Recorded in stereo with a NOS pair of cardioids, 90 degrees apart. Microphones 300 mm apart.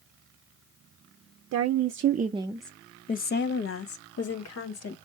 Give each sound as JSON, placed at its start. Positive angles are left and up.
{"t": 1.5, "sound": "a woman speaking", "azimuth_deg": -60, "distance_m": 0.7}